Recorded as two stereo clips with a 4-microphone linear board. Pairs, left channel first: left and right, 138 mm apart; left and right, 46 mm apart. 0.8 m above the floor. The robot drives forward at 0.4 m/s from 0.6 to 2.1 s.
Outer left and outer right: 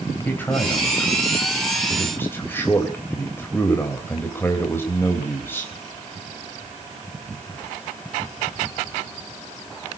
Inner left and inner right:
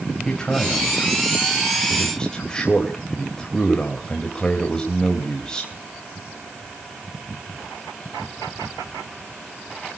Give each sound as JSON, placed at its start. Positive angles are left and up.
{"t": 0.2, "sound": "a man speaking", "side_deg": 15, "distance_m": 3.5}